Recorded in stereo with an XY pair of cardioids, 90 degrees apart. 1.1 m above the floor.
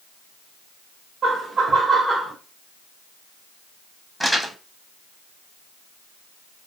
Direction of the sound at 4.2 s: 10° right.